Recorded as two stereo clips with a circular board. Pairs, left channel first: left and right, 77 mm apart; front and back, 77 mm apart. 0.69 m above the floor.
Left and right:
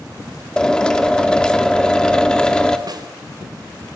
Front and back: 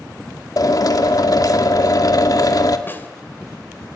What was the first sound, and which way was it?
A drill, 15° left.